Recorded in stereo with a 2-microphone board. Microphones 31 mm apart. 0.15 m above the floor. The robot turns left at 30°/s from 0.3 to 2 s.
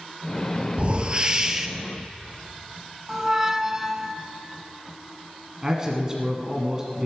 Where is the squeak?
20° right (ahead or behind), 0.5 m.